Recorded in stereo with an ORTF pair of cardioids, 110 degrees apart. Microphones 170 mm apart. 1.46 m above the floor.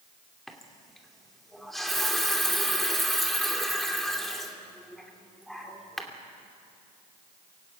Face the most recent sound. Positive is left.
turn(degrees=0)